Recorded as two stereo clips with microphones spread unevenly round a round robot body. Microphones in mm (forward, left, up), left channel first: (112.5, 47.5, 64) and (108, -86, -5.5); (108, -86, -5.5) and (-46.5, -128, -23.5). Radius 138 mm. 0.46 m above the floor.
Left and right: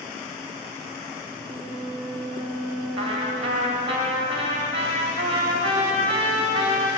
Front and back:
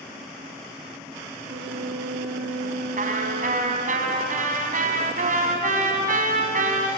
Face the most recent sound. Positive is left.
turn(degrees=-135)